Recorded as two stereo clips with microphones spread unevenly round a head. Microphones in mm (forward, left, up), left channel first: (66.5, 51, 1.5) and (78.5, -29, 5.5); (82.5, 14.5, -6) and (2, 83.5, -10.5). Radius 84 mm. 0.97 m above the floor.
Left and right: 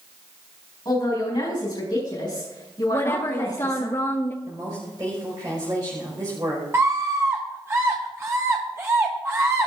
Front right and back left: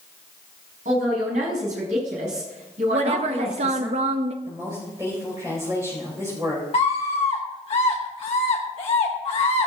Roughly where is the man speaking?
Behind.